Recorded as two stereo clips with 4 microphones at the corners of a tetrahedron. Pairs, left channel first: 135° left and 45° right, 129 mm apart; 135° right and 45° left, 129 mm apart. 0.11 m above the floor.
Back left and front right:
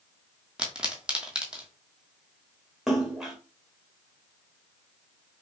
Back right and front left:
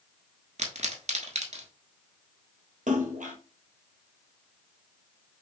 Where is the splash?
45° left, 1.3 m.